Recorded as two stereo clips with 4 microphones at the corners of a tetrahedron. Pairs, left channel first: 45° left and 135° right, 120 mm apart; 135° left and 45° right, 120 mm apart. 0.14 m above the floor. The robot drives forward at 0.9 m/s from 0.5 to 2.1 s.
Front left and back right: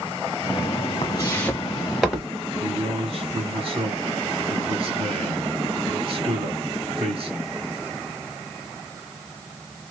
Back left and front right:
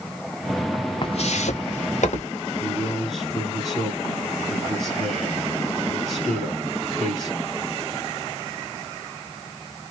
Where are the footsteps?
90° left, 0.6 m; by 2.3 s 135° left, 1.9 m.